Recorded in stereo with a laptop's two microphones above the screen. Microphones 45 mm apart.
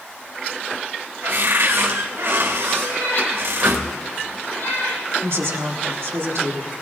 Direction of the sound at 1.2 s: 70° right (ahead or behind).